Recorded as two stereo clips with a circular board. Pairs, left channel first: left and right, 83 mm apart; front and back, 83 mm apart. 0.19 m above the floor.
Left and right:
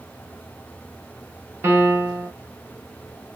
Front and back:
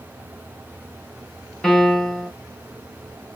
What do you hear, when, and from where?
1.6 s a piano: 80° right, 0.9 m